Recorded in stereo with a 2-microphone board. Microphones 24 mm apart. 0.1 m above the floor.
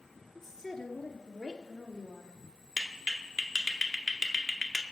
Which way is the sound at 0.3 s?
20° left (ahead or behind).